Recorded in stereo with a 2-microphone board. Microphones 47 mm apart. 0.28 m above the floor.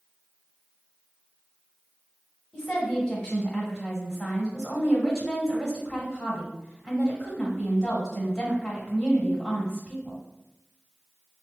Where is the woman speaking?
Centre (ahead or behind), 1.1 m.